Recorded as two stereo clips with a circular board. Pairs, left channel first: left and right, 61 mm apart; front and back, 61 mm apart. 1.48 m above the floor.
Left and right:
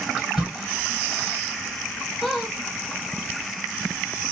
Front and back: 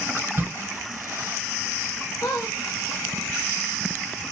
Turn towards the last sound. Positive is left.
turn(degrees=5)